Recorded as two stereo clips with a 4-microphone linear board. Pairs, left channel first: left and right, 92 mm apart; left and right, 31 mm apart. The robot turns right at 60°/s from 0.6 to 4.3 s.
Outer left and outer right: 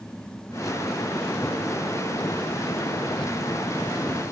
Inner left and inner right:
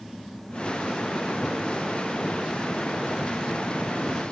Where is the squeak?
I don't hear a squeak.